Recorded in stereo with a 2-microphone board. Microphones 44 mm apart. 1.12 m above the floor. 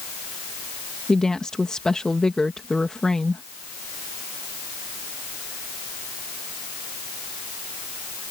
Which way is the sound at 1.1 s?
15° left (ahead or behind).